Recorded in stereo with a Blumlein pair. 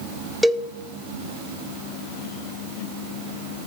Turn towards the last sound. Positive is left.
turn(degrees=0)